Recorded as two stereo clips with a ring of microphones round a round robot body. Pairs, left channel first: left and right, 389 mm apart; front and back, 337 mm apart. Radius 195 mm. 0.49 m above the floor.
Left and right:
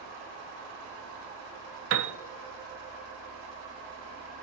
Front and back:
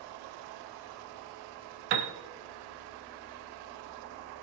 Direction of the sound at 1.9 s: 150° right.